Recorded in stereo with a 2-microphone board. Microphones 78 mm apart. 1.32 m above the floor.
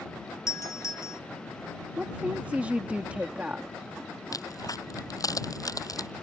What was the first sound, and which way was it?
A doorbell, 45° left (ahead or behind).